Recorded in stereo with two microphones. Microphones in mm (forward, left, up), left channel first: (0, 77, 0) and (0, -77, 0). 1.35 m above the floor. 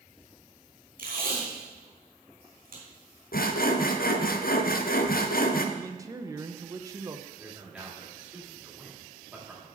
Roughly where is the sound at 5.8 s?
Right.